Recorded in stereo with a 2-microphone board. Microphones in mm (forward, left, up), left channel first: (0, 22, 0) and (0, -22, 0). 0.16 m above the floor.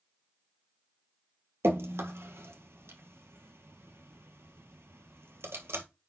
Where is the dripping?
70° right (ahead or behind), 1.4 m.